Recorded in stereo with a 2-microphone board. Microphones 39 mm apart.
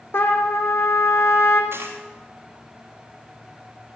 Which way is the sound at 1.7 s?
80° right.